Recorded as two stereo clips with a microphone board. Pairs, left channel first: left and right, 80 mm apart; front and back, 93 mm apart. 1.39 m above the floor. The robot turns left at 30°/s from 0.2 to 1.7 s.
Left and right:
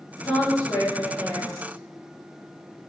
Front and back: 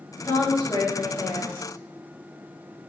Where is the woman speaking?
55° left, 1.7 m; by 1.7 s 15° left, 1.7 m.